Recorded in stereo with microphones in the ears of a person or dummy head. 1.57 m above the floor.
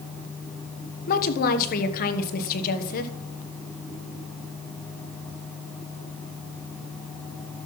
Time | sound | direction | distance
1.1 | a woman speaking | 50° left (ahead or behind) | 1.2 m